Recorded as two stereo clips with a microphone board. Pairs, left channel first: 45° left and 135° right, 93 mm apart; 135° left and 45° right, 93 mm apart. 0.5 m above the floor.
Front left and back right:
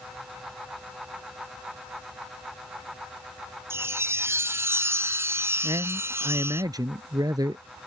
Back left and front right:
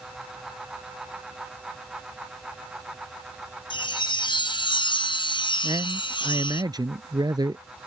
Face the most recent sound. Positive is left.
turn(degrees=-90)